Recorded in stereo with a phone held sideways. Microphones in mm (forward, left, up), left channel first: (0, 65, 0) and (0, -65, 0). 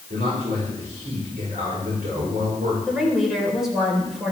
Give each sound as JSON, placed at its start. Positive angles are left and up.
{"t": 0.1, "sound": "a man speaking", "side_deg": -80, "distance_m": 5.0}
{"t": 2.9, "sound": "a woman speaking", "side_deg": 0, "distance_m": 4.5}